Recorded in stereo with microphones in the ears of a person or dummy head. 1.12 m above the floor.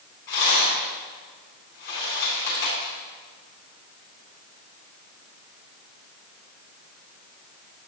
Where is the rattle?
60° left (ahead or behind), 3.5 m.